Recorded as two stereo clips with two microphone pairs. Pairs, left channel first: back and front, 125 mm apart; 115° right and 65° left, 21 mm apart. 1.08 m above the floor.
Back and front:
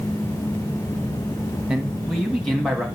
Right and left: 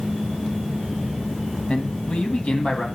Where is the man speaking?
85° right, 1.5 m; by 2.9 s 95° right, 2 m.